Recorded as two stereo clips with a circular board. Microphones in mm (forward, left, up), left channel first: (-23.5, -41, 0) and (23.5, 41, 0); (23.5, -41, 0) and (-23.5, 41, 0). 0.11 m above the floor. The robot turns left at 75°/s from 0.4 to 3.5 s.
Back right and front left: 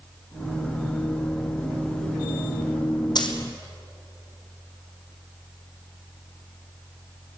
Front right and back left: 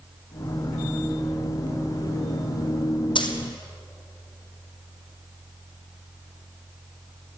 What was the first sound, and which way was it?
A dropped coin, 80° right.